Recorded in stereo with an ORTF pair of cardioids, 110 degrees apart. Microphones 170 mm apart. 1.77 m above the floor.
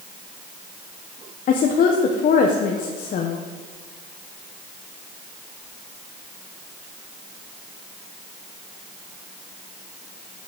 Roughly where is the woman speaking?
Ahead left.